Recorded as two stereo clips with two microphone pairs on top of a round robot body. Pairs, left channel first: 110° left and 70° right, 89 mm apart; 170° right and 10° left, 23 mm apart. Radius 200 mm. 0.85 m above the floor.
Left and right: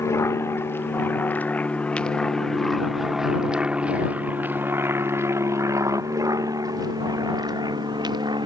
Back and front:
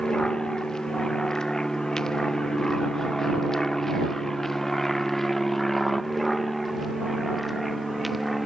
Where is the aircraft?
150° left; by 8.5 s 75° right.